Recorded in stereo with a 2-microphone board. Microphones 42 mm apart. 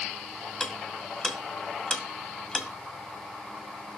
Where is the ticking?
15° left (ahead or behind), 1.6 m.